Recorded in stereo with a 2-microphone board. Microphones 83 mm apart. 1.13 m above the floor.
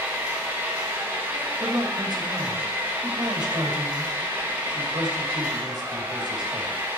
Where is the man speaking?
55° right (ahead or behind), 2.5 m.